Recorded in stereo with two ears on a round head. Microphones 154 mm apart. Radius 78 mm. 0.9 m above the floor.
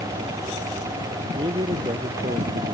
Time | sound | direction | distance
1.4 | a man speaking | 25° right (ahead or behind) | ?